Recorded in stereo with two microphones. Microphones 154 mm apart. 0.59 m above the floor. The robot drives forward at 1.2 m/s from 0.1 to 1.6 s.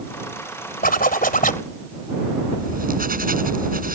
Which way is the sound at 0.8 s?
70° left (ahead or behind).